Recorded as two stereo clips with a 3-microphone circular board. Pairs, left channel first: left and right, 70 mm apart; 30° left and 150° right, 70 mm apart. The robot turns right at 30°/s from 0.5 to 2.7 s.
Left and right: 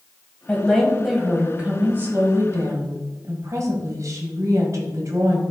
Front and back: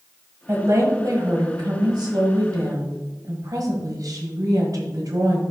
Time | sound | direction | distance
0.5 | a woman speaking | 165° left | 1.8 m